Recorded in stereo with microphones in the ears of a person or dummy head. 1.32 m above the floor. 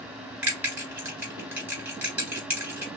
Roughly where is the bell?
Centre.